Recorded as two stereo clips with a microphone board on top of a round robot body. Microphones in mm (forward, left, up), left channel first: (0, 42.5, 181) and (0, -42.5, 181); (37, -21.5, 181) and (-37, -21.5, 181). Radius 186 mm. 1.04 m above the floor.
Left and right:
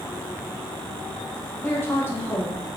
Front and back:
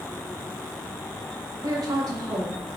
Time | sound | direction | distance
1.6 | a woman speaking | 155° left | 1.2 m